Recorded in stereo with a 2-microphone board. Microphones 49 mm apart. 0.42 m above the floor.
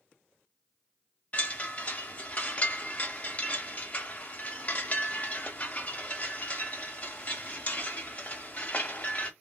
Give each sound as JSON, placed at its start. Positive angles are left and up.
{"t": 1.3, "sound": "a chime", "side_deg": 35, "distance_m": 0.7}